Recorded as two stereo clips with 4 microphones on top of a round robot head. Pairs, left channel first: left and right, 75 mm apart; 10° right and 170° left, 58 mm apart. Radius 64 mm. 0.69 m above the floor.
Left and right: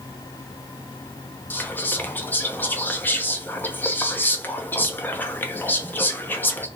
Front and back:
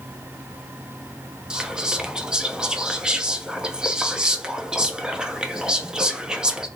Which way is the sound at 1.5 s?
110° left.